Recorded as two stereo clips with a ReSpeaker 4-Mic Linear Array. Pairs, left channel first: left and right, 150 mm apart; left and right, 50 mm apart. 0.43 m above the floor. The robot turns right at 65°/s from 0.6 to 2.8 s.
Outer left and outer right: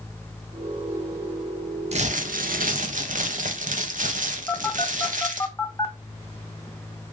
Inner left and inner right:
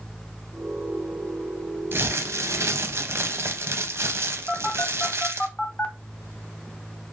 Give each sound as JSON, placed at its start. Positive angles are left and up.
{"t": 1.9, "sound": "crumpling", "azimuth_deg": -130, "distance_m": 0.6}
{"t": 4.5, "sound": "a phone buzzing", "side_deg": 20, "distance_m": 0.7}